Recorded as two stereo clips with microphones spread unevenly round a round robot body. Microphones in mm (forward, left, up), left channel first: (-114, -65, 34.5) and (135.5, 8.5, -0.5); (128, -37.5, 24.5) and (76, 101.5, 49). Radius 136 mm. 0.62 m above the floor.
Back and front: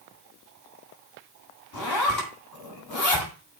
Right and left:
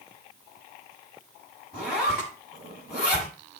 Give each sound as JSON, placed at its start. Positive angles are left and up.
{"t": 1.7, "sound": "a zipper", "azimuth_deg": -160, "distance_m": 7.5}